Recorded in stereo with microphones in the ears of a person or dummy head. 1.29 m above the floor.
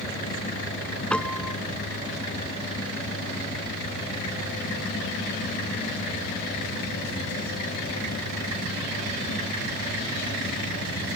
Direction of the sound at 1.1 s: 10° left (ahead or behind).